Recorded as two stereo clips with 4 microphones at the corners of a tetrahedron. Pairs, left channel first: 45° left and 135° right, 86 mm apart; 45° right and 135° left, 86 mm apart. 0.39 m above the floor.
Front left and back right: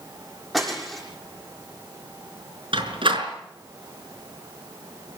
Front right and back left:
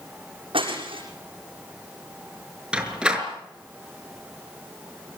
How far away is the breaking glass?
About 7 m.